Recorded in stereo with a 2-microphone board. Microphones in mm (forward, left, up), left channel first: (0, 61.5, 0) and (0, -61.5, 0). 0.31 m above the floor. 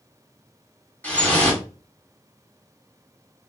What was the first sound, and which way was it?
Dripping, 15° left (ahead or behind).